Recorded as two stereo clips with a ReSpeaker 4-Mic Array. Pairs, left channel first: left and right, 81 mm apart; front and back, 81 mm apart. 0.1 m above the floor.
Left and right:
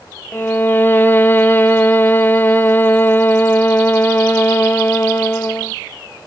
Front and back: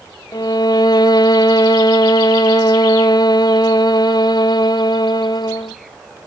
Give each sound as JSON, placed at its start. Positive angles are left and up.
{"t": 0.3, "sound": "a violin", "azimuth_deg": 25, "distance_m": 0.6}